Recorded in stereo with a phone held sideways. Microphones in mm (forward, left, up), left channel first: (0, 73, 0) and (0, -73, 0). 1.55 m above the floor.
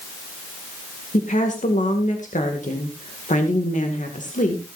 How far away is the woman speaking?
About 2 m.